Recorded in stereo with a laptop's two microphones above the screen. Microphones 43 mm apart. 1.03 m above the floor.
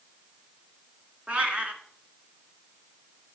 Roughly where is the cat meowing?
Right.